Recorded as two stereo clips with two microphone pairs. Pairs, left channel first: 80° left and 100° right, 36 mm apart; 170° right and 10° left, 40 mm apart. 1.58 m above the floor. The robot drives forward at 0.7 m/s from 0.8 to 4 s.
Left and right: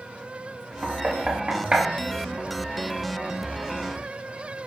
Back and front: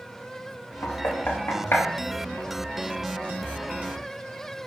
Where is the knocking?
155° right, 2 m; by 1.9 s 160° right, 2.5 m.